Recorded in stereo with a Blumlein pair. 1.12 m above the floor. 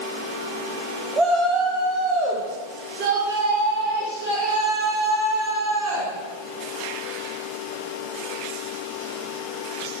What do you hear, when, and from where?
1.2 s a shout: 15° right, 1.3 m; by 6.1 s 60° right, 4.5 m